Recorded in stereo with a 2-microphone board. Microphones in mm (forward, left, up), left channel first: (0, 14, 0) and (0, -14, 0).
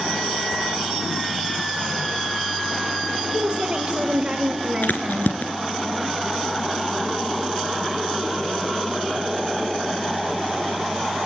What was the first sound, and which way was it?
A woman speaking, 50° right (ahead or behind).